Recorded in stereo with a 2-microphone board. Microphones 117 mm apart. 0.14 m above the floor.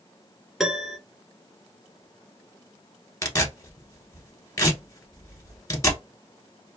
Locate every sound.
0.6 s a piano: 5° right (ahead or behind), 0.8 m
3.2 s tearing paper: 30° left (ahead or behind), 1.1 m